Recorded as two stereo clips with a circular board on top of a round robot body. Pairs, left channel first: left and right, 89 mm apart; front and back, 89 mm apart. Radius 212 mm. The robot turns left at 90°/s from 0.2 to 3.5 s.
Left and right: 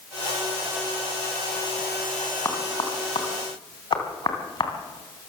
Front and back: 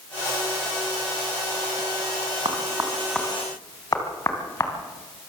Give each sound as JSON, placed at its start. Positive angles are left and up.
{"t": 2.5, "sound": "knocking", "azimuth_deg": 145, "distance_m": 3.5}